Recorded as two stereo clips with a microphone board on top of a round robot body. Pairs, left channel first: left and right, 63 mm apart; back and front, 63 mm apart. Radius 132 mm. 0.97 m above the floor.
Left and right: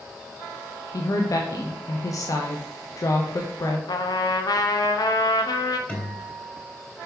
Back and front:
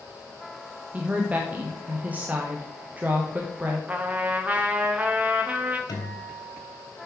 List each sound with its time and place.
0.9 s a woman speaking: 65° left, 0.9 m
3.9 s a trumpet: 70° left, 0.7 m
5.9 s a guitar: 160° left, 2.5 m